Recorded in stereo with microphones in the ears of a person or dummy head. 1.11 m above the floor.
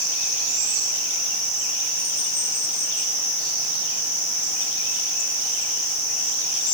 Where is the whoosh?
No whoosh in this recording.